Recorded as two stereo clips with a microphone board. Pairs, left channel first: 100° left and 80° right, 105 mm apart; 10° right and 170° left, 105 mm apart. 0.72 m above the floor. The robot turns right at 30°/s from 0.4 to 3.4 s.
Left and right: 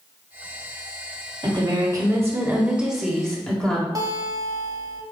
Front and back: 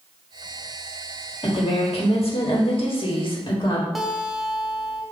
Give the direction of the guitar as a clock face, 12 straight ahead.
3 o'clock.